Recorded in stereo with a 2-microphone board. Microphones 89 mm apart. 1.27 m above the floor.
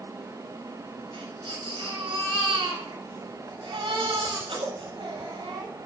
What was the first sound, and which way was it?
A baby crying, 85° right.